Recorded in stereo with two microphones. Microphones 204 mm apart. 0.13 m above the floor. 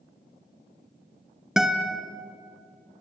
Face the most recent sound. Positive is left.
turn(degrees=0)  # may be behind; listen again after turning